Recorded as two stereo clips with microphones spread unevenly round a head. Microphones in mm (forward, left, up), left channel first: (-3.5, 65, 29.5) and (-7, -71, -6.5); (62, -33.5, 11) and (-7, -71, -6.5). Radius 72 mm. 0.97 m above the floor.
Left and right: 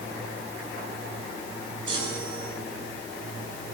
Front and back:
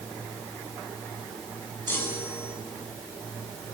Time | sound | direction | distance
1.9 | a chime | 35° right | 7.5 m